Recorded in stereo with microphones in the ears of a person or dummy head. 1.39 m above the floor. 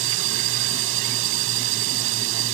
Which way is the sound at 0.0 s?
75° right (ahead or behind).